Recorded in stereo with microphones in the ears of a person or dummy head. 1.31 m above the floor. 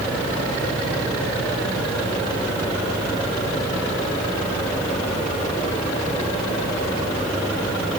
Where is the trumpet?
No trumpet in this recording.